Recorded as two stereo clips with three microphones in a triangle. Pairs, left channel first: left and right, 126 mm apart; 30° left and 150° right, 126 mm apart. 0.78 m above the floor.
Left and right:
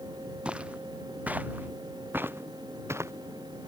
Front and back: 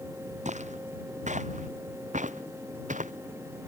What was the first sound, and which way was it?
Footsteps, 170° right.